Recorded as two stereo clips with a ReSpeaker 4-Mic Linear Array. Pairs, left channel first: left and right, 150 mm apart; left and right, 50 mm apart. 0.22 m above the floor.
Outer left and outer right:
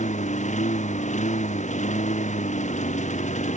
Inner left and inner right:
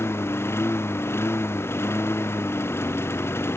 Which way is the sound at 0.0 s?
55° left (ahead or behind).